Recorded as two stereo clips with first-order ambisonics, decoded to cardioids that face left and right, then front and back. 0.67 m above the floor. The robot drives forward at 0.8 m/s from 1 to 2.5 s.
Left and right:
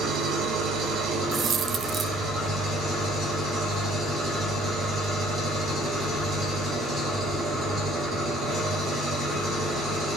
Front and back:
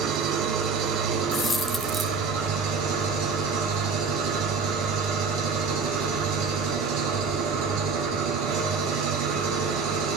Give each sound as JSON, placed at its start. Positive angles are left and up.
{"t": 0.0, "sound": "an engine running", "azimuth_deg": -140, "distance_m": 1.8}
{"t": 1.3, "sound": "a dropped coin", "azimuth_deg": -50, "distance_m": 0.7}